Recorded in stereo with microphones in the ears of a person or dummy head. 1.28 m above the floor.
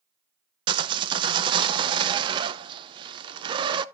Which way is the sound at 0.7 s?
25° right (ahead or behind).